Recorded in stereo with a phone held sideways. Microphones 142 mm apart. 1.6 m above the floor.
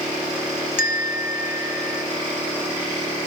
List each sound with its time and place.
0.8 s a bell: 80° left, 1.0 m